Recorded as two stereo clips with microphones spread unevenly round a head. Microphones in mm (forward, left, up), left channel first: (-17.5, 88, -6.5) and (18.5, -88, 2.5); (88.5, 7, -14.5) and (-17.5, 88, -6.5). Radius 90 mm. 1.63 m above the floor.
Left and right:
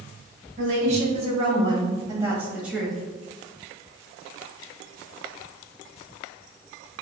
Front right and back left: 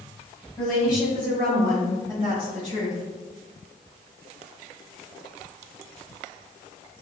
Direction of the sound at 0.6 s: 125° right.